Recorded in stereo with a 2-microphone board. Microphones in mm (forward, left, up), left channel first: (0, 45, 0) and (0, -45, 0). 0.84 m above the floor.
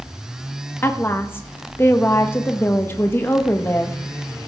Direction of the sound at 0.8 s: 25° left (ahead or behind).